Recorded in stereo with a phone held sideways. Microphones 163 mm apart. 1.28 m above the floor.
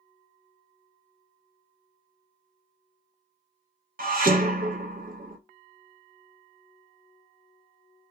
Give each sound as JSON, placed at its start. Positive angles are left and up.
{"t": 4.0, "sound": "dishes clattering", "side_deg": -60, "distance_m": 0.6}